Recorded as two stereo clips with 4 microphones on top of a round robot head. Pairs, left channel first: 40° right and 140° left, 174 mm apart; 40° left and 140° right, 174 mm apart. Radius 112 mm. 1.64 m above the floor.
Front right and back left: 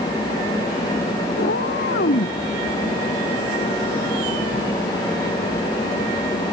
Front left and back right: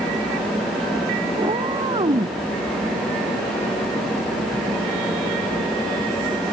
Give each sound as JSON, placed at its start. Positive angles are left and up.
{"t": 1.4, "sound": "a cat meowing", "azimuth_deg": -80}